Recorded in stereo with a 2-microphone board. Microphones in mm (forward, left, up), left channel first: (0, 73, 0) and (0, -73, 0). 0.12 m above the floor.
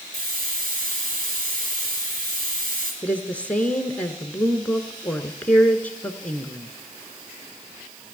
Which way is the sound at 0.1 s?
75° right (ahead or behind).